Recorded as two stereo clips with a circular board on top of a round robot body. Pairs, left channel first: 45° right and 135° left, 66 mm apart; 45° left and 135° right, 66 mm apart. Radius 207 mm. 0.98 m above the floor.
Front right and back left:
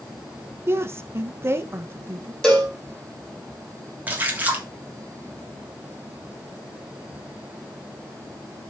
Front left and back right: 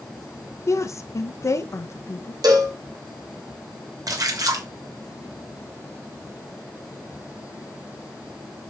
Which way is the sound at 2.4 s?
125° right.